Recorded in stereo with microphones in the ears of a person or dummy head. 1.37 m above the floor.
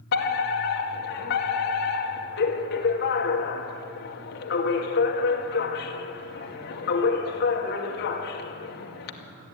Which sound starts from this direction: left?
A fire alarm, at 0.1 s.